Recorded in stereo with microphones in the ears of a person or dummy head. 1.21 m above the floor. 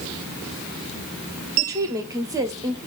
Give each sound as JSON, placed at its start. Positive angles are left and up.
{"t": 1.6, "sound": "a woman speaking", "side_deg": -20, "distance_m": 0.6}